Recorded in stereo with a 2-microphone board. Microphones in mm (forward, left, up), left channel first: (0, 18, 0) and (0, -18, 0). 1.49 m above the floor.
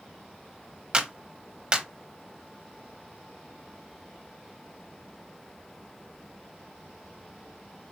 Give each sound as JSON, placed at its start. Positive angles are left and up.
{"t": 0.9, "sound": "a clap", "side_deg": -20, "distance_m": 1.0}